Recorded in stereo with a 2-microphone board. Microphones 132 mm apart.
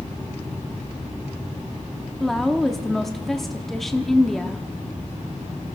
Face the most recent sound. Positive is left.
turn(degrees=0)  # may be behind; listen again after turning